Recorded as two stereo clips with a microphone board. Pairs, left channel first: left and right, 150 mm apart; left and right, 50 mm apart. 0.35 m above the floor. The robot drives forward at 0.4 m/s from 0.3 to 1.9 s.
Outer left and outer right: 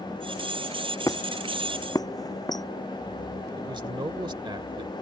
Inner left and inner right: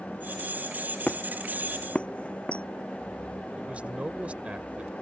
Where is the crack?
No crack in this recording.